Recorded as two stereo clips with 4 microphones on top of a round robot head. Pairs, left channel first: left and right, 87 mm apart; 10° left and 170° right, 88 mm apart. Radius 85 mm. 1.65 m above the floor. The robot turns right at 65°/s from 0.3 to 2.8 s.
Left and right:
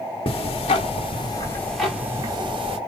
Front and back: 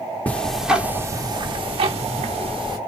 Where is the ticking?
80° left, 1.0 m; by 2.8 s 120° right, 1.0 m.